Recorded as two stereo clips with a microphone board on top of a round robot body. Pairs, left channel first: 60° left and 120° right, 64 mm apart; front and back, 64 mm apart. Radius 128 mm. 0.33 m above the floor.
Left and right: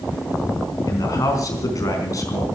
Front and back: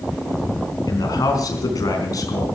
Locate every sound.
0.9 s a man speaking: 30° left, 4.5 m